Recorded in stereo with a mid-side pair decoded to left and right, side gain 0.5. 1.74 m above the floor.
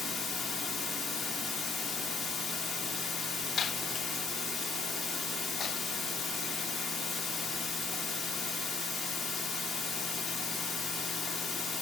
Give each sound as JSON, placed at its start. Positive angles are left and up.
{"t": 0.0, "sound": "running water", "azimuth_deg": 55, "distance_m": 1.2}